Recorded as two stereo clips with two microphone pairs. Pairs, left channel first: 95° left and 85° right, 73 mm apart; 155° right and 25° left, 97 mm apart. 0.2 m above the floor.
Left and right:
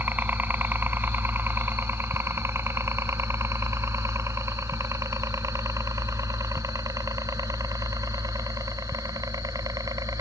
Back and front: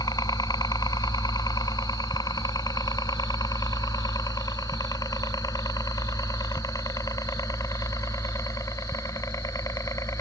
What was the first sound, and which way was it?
A helicopter, 140° right.